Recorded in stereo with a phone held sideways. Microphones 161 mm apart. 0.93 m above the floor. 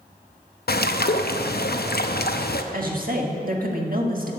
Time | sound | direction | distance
0.7 | a bird | 75° left (ahead or behind) | 0.6 m
2.7 | a woman speaking | 60° right (ahead or behind) | 1.6 m